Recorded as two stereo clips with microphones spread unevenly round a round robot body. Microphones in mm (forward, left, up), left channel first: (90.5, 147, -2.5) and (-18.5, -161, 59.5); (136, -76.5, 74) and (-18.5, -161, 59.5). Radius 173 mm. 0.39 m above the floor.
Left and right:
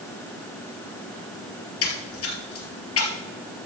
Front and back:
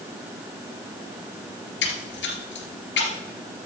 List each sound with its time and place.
1.8 s a splash: 20° left, 2.5 m